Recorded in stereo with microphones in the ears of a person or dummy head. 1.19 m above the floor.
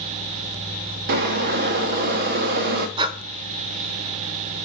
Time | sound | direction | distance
1.1 | boiling | 50° right (ahead or behind) | 0.8 m
3.0 | breathing | 30° right (ahead or behind) | 0.8 m